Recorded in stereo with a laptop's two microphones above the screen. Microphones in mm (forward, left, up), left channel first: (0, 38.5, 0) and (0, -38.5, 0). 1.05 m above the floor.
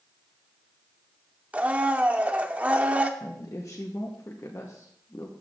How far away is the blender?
About 0.7 m.